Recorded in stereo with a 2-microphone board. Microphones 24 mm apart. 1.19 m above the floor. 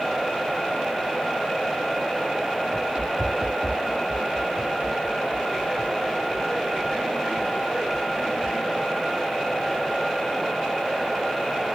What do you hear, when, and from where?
2.7 s running footsteps: 50° right (ahead or behind)